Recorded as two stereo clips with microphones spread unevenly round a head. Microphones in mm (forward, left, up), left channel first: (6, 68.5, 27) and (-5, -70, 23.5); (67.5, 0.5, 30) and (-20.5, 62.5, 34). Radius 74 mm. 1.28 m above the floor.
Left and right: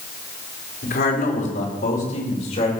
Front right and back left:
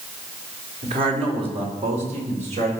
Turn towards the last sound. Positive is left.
turn(degrees=130)